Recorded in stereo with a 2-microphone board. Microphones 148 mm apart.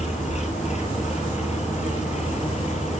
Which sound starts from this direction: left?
An engine running, at 0.0 s.